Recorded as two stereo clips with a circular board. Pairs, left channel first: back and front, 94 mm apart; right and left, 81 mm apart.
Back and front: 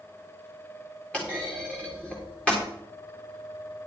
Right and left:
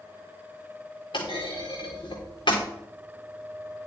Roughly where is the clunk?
Right.